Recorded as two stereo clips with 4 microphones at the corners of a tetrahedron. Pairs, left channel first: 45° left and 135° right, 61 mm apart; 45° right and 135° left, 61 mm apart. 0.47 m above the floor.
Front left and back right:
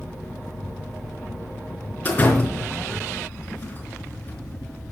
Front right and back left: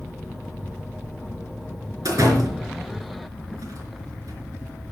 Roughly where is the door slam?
Left.